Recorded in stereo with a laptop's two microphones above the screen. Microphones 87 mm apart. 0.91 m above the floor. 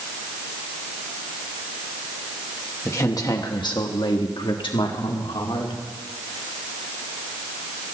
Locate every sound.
2.9 s a woman speaking: 35° left (ahead or behind), 1.2 m; by 5.8 s 75° left (ahead or behind), 3 m